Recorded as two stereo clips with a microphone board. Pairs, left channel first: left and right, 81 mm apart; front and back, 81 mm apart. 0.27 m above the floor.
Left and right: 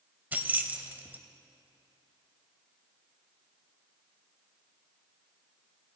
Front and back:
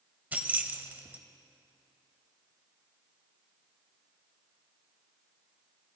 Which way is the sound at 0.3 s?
135° right.